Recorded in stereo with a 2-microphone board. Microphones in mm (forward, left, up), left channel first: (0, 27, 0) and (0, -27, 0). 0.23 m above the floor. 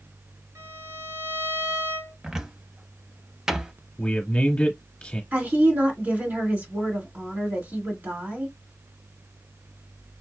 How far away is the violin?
About 3 m.